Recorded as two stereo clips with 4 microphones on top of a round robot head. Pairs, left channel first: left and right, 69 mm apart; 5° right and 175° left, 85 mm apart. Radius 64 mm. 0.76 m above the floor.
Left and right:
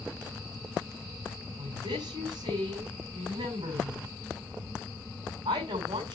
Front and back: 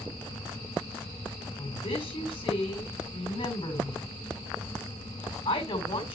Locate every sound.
1.6 s a woman speaking: 45° right, 5 m